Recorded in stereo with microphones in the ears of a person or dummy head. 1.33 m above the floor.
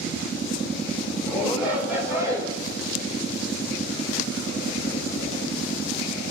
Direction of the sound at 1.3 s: 5° right (ahead or behind).